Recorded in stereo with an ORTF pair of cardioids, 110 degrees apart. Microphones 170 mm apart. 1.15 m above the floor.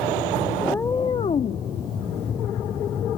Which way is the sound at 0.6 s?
5° left.